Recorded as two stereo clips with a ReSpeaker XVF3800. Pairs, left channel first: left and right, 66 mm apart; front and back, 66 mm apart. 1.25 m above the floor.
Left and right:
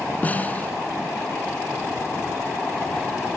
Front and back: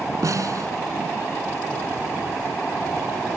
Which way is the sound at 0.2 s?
155° left.